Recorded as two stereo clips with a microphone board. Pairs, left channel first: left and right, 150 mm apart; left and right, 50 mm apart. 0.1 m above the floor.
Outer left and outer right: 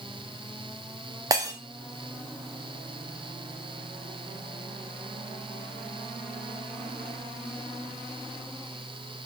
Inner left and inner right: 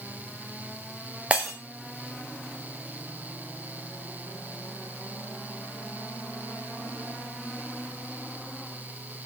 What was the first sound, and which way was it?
Breaking glass, 25° right (ahead or behind).